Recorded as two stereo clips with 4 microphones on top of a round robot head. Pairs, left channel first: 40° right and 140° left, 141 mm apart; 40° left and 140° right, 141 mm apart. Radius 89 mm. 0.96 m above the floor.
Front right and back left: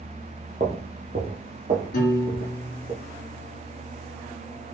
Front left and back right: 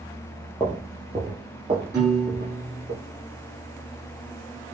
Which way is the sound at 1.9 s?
65° right.